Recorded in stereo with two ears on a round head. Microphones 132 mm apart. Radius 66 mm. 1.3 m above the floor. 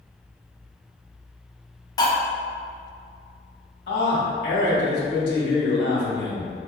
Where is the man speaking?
85° left, 1.6 m.